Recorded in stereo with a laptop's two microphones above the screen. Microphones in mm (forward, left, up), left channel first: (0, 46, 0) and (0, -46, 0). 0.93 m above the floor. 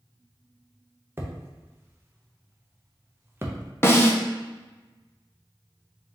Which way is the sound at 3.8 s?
25° left (ahead or behind).